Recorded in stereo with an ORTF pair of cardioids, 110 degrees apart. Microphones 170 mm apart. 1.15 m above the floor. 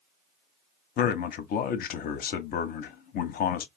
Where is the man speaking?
60° left, 0.7 m.